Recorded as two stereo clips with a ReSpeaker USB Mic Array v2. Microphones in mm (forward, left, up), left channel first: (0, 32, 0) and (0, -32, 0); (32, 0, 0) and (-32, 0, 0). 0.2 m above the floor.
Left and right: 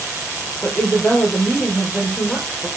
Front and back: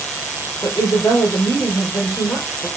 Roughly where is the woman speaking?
Ahead.